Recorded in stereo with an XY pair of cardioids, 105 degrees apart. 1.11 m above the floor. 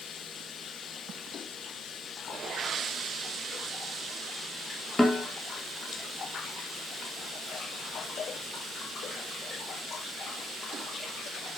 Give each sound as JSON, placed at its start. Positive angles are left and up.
{"t": 5.0, "sound": "a snare drum", "azimuth_deg": 10, "distance_m": 0.8}